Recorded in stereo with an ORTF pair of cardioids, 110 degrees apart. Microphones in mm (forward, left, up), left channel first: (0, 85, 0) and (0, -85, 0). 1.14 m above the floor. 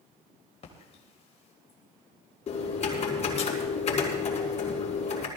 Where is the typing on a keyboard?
40° left, 5 m.